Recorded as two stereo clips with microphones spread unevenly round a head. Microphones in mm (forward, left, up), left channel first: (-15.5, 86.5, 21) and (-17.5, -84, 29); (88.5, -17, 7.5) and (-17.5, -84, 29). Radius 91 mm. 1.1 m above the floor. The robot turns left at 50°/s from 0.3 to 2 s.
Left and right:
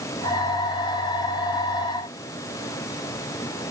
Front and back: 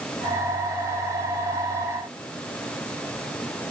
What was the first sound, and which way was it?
Only background noise.